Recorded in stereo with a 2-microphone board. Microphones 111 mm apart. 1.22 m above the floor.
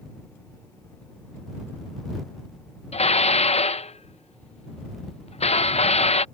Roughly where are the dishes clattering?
Left.